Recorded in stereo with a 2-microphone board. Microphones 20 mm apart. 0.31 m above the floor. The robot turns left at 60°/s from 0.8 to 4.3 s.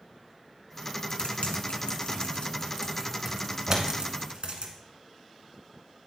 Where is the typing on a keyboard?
55° left (ahead or behind), 1.5 m; by 4.7 s 65° right (ahead or behind), 1.5 m.